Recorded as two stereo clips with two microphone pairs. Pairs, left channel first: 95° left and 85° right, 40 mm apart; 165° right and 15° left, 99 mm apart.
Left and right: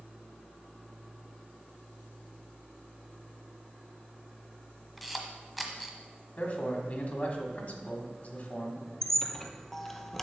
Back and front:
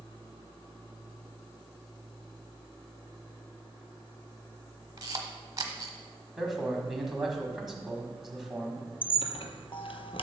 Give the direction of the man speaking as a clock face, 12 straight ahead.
9 o'clock.